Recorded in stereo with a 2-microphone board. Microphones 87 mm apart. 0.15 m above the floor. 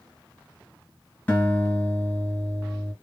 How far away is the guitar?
About 2.5 m.